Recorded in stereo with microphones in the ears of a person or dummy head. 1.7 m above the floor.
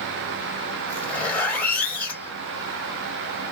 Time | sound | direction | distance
0.9 | a zipper | 10° left (ahead or behind) | 1.9 m